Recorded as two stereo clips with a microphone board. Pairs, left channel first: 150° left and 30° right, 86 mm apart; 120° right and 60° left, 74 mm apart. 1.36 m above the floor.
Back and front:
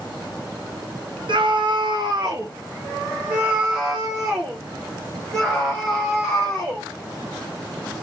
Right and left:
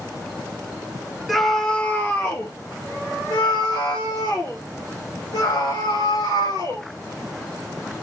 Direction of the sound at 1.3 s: 30° right.